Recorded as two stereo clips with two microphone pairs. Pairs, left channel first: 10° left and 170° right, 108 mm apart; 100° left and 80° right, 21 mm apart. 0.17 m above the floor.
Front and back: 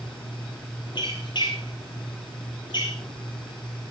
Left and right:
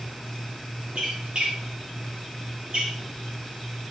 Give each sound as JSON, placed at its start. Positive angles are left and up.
{"t": 0.9, "sound": "a squeak", "azimuth_deg": -35, "distance_m": 5.5}